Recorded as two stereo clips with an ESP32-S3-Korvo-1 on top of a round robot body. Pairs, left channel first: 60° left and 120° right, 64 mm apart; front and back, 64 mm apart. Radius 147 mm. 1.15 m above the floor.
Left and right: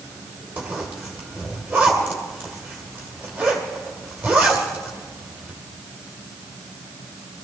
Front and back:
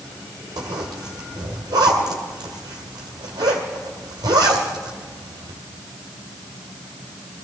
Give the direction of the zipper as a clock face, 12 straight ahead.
6 o'clock.